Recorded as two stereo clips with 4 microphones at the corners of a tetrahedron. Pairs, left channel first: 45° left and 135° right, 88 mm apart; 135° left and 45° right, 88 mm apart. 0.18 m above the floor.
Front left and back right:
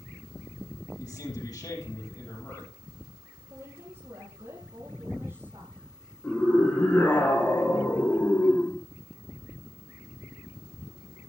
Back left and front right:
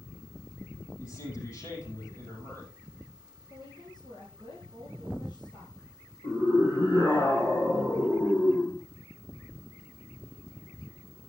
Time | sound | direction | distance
1.0 | a man speaking | 80° left | 5.5 m
3.5 | a woman speaking | 170° left | 4.5 m
6.2 | a scream | 110° left | 3.5 m